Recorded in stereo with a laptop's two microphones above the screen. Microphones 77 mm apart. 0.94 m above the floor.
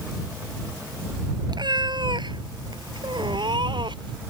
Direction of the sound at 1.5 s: 65° right (ahead or behind).